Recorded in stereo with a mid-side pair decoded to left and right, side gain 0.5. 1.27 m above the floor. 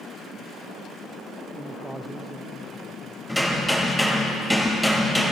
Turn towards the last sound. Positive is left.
turn(degrees=0)